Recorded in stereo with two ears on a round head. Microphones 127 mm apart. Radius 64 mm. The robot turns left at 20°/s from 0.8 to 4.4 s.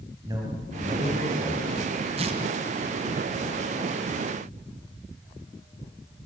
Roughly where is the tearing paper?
Right.